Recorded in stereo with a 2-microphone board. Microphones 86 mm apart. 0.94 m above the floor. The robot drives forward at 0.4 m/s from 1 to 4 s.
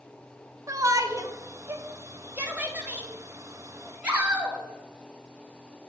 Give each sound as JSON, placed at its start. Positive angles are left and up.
{"t": 0.7, "sound": "a shout", "side_deg": -40, "distance_m": 0.6}